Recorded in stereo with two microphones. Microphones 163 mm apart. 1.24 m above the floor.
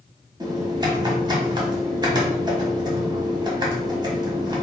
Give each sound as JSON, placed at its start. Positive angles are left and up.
{"t": 0.4, "sound": "typing on a keyboard", "side_deg": -25, "distance_m": 1.2}